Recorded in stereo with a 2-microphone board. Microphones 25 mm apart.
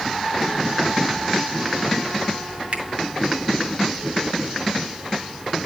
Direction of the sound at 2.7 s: 55° right (ahead or behind).